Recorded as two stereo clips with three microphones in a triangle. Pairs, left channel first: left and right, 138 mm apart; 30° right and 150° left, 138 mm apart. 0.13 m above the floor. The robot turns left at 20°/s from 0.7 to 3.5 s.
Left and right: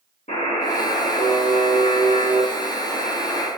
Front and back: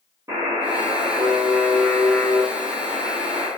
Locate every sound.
0.3 s a buzzer: 85° left, 3.5 m; by 3.5 s 30° left, 3.5 m